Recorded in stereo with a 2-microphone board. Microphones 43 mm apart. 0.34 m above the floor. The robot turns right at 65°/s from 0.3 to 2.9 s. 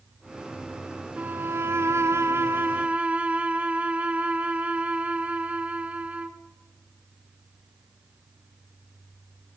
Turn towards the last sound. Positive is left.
turn(degrees=-30)